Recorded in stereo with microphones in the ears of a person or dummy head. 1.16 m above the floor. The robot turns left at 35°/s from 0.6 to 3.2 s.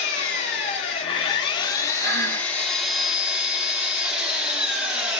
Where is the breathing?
50° right (ahead or behind), 1.4 m; by 2.5 s 60° right (ahead or behind), 1.4 m.